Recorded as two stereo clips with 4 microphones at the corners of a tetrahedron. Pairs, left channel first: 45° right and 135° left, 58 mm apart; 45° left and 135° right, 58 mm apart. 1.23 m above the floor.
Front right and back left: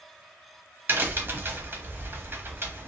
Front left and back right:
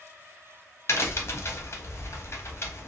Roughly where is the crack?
Left.